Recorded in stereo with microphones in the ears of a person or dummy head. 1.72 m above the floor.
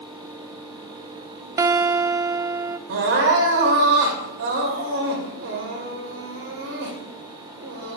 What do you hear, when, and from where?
1.6 s a guitar: 20° right (ahead or behind), 0.6 m
2.9 s crying: 60° right (ahead or behind), 2.5 m